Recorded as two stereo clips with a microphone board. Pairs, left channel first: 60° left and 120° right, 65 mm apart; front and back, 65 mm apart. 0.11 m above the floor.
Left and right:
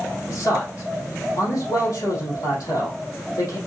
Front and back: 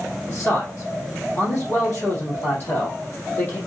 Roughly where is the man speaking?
Ahead left.